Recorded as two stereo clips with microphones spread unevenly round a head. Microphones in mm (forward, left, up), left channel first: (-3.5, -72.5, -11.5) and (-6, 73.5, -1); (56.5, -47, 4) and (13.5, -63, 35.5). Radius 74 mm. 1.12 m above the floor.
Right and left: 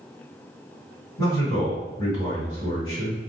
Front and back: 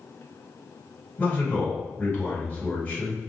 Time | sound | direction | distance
1.2 | a man speaking | 25° right | 1.6 m